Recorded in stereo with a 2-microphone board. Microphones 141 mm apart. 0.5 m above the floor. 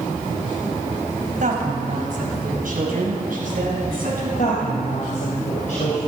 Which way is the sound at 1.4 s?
70° right (ahead or behind).